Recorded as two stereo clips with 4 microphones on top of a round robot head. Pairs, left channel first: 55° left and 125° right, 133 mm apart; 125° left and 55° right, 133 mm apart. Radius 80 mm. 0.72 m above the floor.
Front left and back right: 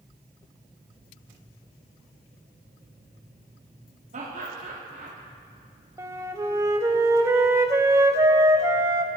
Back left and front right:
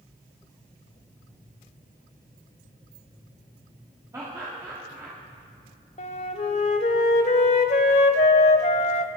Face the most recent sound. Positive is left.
turn(degrees=165)